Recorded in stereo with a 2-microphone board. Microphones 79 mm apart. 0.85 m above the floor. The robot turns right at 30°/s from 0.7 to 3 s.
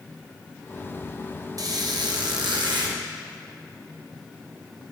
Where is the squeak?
125° right, 0.7 m; by 3.0 s 80° right, 0.7 m.